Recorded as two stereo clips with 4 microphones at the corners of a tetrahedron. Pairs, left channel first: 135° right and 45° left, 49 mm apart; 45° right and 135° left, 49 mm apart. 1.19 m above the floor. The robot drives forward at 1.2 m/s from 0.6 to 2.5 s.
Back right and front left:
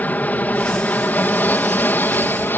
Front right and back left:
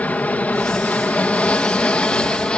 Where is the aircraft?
95° right; by 2.6 s 110° right.